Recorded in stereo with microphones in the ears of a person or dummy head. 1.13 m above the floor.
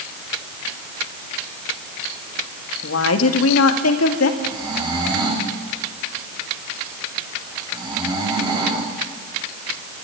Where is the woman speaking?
80° left, 1.7 m; by 4.3 s 70° left (ahead or behind), 2.0 m.